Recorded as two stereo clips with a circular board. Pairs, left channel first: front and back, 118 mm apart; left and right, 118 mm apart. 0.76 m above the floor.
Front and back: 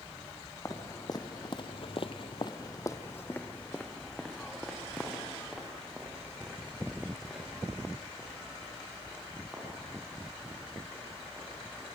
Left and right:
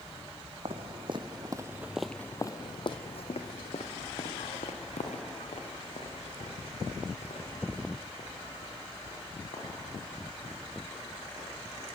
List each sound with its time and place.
0.7 s footsteps: 60° right, 2.5 m; by 11.9 s 95° left, 15 m